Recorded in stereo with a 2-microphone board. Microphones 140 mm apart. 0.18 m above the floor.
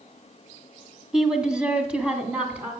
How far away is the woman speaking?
About 1.3 m.